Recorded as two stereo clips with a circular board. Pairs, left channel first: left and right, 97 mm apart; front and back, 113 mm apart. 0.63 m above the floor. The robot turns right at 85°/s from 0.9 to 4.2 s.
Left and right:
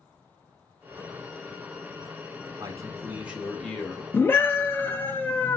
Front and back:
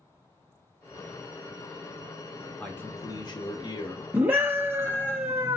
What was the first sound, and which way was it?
A man speaking, 75° right.